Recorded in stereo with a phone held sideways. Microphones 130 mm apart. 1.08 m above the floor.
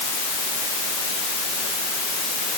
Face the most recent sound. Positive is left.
No sound to turn to.